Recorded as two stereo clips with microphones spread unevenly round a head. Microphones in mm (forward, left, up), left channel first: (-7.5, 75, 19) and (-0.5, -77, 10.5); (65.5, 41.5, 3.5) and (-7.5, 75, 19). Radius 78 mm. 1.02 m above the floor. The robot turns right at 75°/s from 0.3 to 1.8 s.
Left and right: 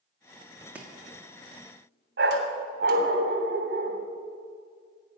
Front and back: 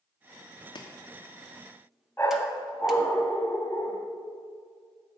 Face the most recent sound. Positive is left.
turn(degrees=-110)